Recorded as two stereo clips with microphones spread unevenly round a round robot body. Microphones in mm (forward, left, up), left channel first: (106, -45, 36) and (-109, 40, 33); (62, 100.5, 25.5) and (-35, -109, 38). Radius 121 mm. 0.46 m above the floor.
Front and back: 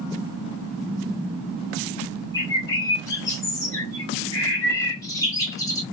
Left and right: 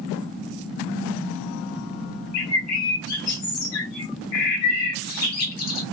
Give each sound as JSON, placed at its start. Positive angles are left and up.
{"t": 2.3, "sound": "a bird", "azimuth_deg": 55, "distance_m": 1.1}